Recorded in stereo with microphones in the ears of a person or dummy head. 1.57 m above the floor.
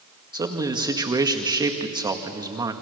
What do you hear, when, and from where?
0.3 s a man speaking: 20° right (ahead or behind), 1.8 m